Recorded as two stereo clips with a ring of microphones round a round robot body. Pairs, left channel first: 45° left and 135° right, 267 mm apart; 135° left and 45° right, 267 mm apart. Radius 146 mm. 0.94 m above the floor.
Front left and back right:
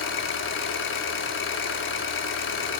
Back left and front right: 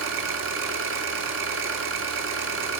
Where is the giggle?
I don't hear a giggle.